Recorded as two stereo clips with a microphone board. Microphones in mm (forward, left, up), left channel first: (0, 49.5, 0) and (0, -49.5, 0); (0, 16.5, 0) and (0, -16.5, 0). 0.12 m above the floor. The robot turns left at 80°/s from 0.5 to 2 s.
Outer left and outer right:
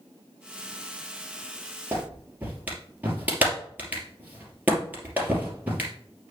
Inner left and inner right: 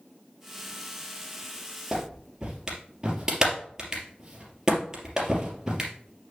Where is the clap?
25° right (ahead or behind), 3 m; by 5.9 s 15° right (ahead or behind), 3 m.